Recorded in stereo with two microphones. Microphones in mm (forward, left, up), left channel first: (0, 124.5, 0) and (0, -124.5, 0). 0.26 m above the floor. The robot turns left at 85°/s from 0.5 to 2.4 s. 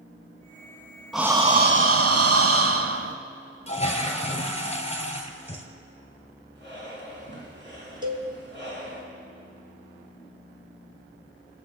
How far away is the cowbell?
About 1.3 m.